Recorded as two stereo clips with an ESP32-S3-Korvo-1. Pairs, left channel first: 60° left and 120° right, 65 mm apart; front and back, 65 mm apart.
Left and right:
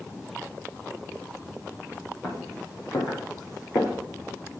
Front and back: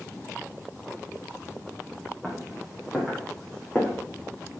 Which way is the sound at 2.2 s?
95° left.